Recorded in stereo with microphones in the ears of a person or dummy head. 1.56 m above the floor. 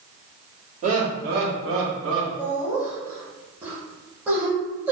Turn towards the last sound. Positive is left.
turn(degrees=-10)  # may be behind; listen again after turning